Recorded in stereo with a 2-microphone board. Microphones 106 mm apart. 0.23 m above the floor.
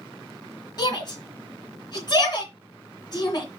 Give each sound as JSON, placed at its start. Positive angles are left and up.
{"t": 0.8, "sound": "a shout", "side_deg": 45, "distance_m": 2.5}